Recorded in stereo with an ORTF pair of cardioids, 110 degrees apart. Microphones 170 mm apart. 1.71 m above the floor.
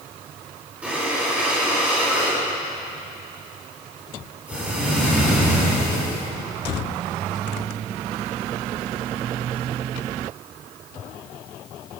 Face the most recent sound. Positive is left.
turn(degrees=-10)